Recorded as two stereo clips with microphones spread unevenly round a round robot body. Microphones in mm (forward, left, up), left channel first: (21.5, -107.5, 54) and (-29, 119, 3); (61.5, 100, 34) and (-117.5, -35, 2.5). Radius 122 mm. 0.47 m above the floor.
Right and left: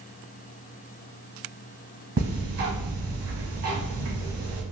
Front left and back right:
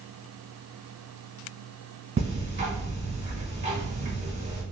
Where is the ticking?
155° left, 1.5 m.